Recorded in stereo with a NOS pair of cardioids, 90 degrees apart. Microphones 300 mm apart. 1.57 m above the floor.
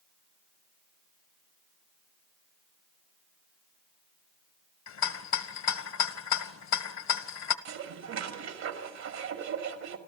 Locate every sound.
4.9 s a rattle: 65° left, 1.5 m
7.7 s dishes clattering: 65° right, 2.5 m